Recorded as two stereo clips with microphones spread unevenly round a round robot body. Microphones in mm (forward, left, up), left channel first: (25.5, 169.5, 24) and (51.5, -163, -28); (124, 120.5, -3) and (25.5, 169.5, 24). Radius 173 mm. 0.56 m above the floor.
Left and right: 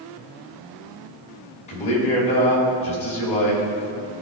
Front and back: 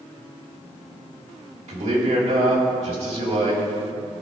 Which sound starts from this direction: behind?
A man speaking, at 1.7 s.